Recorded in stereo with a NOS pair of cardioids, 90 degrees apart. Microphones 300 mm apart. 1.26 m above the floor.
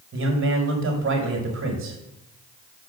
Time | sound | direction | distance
0.1 | a man speaking | 45° right | 5 m